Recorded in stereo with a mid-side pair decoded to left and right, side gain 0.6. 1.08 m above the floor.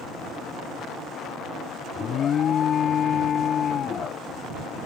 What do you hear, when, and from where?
1.9 s an alarm: 45° left